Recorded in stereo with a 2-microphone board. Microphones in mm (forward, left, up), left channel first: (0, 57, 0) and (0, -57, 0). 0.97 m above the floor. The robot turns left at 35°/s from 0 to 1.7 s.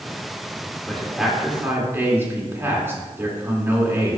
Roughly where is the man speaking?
Centre.